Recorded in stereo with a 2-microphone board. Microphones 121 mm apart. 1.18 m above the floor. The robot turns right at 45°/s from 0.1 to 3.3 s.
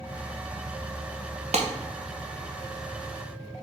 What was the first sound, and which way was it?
A clap, 65° right (ahead or behind).